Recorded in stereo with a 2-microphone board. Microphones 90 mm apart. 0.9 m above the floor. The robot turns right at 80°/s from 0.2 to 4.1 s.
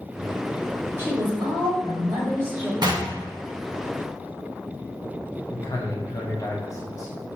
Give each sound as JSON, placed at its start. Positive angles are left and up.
{"t": 1.0, "sound": "a woman speaking", "azimuth_deg": -150, "distance_m": 1.9}
{"t": 2.8, "sound": "knocking", "side_deg": -55, "distance_m": 0.9}
{"t": 5.5, "sound": "a man speaking", "side_deg": 35, "distance_m": 0.8}